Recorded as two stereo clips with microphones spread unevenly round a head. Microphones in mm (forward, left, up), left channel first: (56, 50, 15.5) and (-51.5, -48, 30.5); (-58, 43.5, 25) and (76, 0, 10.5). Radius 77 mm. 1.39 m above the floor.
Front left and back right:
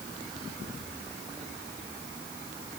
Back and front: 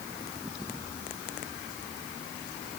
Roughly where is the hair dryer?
No hair dryer in this recording.